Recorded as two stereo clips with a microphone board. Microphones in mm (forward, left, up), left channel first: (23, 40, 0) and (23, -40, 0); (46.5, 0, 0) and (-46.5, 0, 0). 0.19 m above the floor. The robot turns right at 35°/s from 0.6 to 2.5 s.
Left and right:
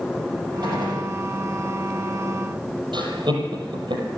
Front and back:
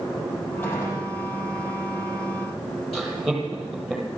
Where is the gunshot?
65° right, 6.5 m; by 1.1 s 50° right, 6.5 m.